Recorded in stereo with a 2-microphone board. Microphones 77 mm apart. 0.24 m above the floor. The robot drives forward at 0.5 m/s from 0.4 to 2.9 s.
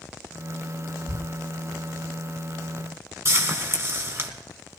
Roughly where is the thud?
Right.